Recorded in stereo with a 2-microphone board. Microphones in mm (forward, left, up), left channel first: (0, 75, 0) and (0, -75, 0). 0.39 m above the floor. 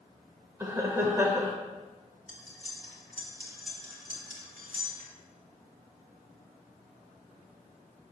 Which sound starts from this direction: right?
Cutlery clinking, at 2.3 s.